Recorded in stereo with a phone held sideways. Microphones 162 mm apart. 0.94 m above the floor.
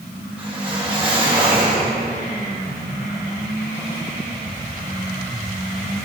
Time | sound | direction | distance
0.4 | a whoosh | 35° right (ahead or behind) | 2.5 m